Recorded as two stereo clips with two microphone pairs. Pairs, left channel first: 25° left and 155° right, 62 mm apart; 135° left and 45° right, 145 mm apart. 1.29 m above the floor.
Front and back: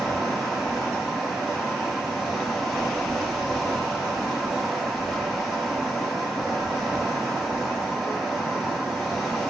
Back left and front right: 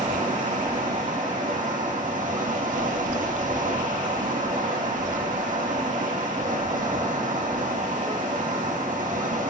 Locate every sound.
0.0 s running water: 60° right, 4 m